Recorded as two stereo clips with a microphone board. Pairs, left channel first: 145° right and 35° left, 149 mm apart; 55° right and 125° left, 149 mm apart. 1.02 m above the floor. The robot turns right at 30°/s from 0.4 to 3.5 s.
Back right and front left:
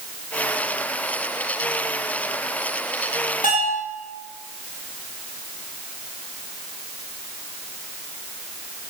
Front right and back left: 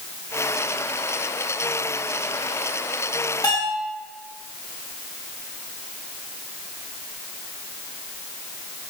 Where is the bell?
120° right, 6.5 m; by 3.8 s 115° right, 6.5 m.